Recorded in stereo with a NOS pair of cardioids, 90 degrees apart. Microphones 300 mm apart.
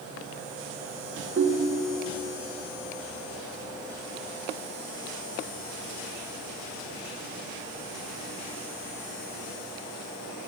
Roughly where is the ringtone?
Ahead right.